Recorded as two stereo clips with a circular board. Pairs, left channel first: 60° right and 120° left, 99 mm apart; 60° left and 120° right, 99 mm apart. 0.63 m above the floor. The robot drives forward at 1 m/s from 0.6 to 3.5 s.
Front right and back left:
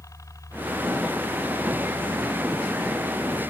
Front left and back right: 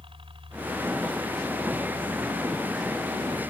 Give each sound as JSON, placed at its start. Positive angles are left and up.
{"t": 0.0, "sound": "a helicopter", "azimuth_deg": -110}